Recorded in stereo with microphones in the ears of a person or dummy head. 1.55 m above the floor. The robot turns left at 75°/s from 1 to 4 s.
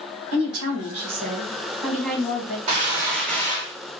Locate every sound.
0.3 s a woman speaking: 105° right, 1.5 m; by 2.6 s 135° left, 1.5 m
2.7 s a gunshot: 145° right, 1.6 m; by 4.0 s 115° left, 1.6 m